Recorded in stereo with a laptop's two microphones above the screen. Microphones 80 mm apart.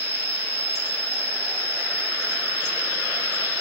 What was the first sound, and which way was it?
An insect, 25° right (ahead or behind).